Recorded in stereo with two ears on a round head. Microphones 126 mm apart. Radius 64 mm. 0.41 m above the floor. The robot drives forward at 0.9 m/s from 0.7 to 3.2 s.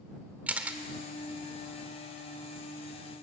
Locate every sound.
0.5 s a camera shutter: 10° right (ahead or behind), 1.3 m